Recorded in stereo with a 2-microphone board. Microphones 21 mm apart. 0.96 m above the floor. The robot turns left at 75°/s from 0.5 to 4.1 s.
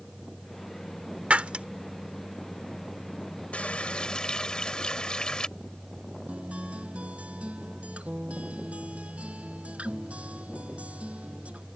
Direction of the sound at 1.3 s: 80° right.